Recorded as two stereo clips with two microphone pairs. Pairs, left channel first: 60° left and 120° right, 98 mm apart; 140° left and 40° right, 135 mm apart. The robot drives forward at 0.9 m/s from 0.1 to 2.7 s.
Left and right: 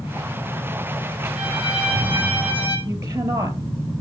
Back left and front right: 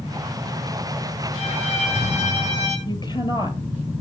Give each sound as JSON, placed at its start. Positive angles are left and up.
{"t": 1.4, "sound": "a violin", "azimuth_deg": 165, "distance_m": 3.5}
{"t": 2.9, "sound": "a woman speaking", "azimuth_deg": -175, "distance_m": 2.0}